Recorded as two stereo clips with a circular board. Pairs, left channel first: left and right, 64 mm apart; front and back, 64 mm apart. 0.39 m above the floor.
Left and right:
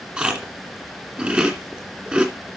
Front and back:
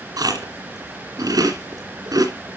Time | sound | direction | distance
0.2 | chewing | 165° right | 2.5 m